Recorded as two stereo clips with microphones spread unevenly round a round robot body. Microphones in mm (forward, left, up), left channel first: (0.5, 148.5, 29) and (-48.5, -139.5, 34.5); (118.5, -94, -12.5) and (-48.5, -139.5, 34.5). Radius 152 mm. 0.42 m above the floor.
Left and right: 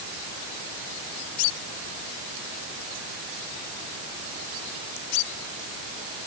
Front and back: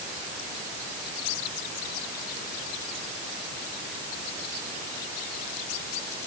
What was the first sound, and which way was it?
Only background noise.